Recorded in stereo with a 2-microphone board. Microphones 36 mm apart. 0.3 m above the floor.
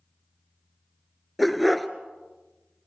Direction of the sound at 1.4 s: Centre (ahead or behind).